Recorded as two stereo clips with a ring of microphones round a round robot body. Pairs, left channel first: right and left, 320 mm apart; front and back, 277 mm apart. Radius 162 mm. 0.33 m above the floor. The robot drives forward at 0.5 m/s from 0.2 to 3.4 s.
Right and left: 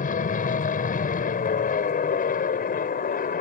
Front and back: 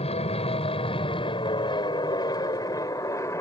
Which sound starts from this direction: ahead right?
An aircraft, at 0.0 s.